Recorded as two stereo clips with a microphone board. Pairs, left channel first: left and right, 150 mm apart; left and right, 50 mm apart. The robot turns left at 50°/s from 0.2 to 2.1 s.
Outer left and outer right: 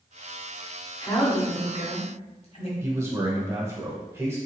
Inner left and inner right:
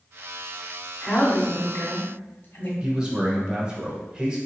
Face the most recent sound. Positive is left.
turn(degrees=-20)  # may be behind; listen again after turning